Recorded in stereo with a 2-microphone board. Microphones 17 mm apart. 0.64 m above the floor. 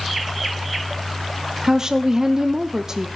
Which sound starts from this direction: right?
A woman speaking, at 1.6 s.